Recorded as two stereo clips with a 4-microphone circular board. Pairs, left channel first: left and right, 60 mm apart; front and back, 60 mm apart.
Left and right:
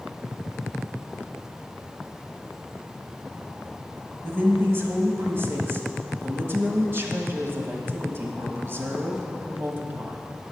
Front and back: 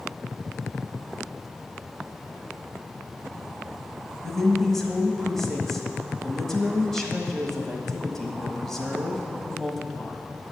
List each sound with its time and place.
4.2 s a woman speaking: 80° right, 1.3 m